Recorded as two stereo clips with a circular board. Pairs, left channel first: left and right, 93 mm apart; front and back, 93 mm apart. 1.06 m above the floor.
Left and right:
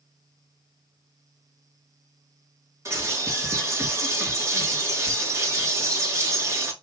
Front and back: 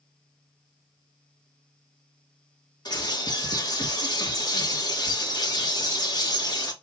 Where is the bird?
35° right, 1.2 m.